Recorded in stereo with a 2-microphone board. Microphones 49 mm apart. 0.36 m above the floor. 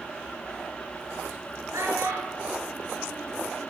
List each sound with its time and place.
1.7 s a child speaking: 80° right, 4 m; by 3.7 s 65° right (ahead or behind), 3.5 m